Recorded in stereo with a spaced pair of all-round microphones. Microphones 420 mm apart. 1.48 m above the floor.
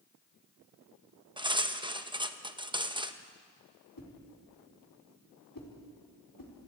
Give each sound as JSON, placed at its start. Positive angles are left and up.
{"t": 1.4, "sound": "cutlery clinking", "side_deg": -10, "distance_m": 0.8}
{"t": 4.0, "sound": "a whoosh", "side_deg": 50, "distance_m": 3.5}